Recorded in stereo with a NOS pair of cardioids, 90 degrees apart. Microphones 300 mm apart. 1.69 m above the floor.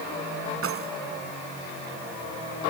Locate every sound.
0.6 s keys jangling: 45° right